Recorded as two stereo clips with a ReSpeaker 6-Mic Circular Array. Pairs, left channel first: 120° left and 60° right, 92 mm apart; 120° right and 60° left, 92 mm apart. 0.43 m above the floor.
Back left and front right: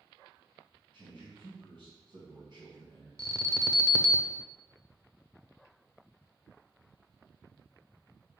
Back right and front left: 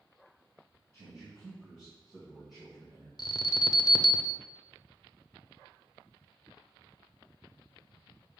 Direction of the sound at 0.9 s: 35° right.